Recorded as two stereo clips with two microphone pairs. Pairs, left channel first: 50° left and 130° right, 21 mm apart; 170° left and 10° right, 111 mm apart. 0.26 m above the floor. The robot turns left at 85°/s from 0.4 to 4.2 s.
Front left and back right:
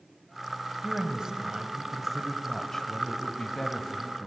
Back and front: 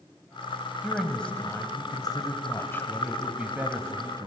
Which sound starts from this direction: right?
A woman speaking, at 0.8 s.